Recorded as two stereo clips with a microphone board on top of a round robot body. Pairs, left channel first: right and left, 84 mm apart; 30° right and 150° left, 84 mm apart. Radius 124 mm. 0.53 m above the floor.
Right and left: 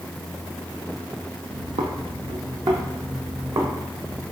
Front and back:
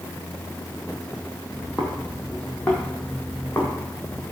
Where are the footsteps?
75° left, 0.9 m; by 4.2 s 40° left, 2.5 m.